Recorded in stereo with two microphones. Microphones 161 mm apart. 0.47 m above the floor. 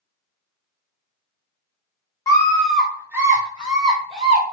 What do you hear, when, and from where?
2.3 s a scream: 20° left (ahead or behind), 0.8 m; by 4.4 s 35° right (ahead or behind), 1.6 m